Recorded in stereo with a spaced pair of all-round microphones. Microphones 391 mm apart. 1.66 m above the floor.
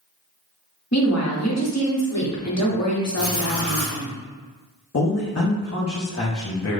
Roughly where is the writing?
Left.